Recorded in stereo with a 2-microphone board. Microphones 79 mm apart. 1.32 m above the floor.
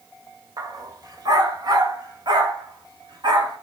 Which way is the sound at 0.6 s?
55° right (ahead or behind).